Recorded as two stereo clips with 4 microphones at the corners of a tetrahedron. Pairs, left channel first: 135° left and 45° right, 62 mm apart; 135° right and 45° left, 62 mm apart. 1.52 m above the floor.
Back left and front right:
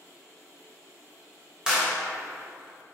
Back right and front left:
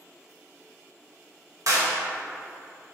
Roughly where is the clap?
Ahead left.